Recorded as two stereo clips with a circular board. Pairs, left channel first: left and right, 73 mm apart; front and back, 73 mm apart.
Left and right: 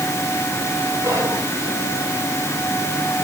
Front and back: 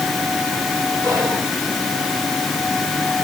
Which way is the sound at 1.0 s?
140° right.